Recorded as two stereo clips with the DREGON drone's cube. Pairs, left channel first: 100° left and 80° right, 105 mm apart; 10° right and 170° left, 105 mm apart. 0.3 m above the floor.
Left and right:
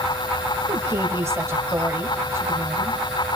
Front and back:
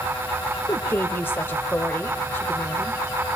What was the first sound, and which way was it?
A woman speaking, 55° right.